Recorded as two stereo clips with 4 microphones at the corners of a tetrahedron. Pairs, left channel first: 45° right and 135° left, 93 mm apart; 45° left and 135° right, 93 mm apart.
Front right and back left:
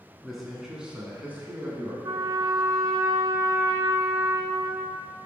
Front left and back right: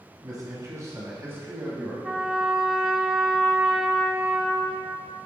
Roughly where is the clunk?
I don't hear a clunk.